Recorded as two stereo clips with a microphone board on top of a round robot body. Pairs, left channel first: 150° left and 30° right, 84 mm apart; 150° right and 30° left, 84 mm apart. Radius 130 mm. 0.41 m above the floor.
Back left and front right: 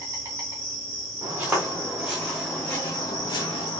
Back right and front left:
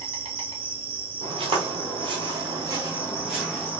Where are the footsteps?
40° left, 1.2 m; by 3.8 s 135° left, 0.8 m.